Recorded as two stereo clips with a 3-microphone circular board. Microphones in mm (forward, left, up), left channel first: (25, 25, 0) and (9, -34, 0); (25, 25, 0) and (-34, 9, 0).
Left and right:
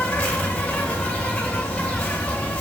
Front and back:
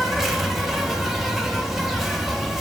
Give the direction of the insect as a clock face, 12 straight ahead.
8 o'clock.